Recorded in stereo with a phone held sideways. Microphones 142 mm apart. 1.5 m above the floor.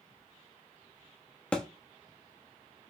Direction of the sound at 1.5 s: 10° left (ahead or behind).